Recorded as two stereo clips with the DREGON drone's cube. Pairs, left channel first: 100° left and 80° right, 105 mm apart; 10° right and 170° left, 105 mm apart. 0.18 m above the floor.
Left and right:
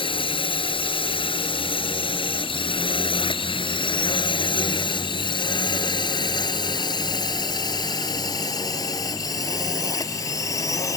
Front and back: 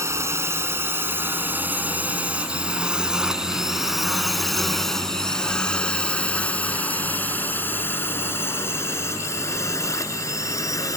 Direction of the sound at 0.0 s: 115° left.